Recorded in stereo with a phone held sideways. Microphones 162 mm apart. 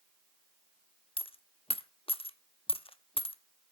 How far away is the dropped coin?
About 0.6 m.